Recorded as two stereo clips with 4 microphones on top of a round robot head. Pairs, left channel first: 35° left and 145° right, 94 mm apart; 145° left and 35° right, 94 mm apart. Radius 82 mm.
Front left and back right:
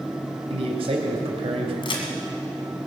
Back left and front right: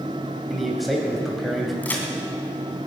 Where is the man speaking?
125° right, 3 m.